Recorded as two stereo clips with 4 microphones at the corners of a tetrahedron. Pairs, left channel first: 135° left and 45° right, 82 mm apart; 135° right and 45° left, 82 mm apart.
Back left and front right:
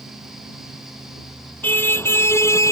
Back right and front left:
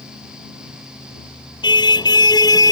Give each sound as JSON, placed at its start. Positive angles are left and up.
{"t": 1.6, "sound": "a car horn", "azimuth_deg": -160}